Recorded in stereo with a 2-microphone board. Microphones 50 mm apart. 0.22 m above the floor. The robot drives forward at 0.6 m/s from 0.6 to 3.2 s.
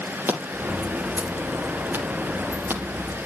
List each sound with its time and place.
0.3 s scissors: 40° right (ahead or behind), 6 m; by 3.3 s 50° right (ahead or behind), 5 m